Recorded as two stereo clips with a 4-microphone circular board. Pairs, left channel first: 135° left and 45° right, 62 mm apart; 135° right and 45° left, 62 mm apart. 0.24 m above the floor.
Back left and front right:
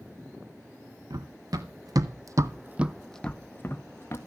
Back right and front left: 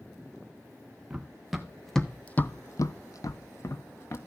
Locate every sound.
1.1 s running footsteps: 35° right, 1.5 m; by 4.2 s 175° right, 1.4 m